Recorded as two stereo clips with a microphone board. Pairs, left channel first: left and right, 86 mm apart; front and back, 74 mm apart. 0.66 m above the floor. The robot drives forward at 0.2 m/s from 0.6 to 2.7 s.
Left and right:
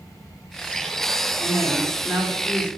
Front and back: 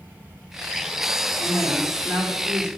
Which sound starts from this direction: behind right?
A man speaking, at 1.4 s.